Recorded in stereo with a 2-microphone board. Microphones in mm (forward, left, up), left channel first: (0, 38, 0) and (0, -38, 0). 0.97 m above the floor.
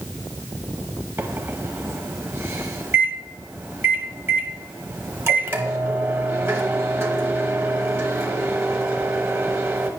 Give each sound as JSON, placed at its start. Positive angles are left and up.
{"t": 1.2, "sound": "a microwave", "side_deg": -35, "distance_m": 0.9}